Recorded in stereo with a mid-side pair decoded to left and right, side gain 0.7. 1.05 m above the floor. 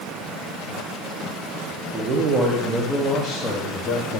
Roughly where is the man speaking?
Ahead right.